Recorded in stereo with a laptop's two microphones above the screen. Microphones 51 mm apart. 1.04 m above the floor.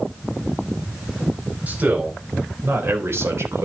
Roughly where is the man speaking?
Right.